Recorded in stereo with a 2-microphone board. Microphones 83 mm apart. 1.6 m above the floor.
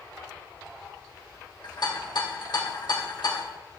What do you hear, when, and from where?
1.6 s a rattle: 65° left (ahead or behind), 1.3 m